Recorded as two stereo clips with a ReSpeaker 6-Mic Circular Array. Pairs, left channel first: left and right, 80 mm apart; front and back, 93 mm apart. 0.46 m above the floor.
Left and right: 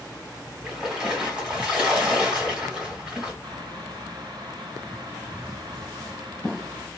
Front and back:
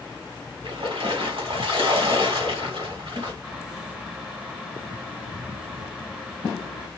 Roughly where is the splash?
Behind.